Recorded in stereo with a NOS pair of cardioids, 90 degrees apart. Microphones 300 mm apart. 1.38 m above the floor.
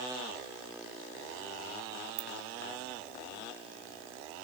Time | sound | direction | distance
2.2 | a ringtone | 30° right | 3 m